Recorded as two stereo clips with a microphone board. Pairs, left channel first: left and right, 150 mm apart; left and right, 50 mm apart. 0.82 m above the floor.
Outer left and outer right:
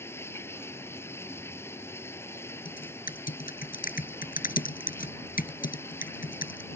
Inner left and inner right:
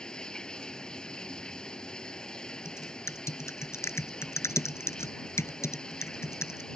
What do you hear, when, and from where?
0.0 s running water: 15° left (ahead or behind)
2.6 s typing on a keyboard: 65° left (ahead or behind)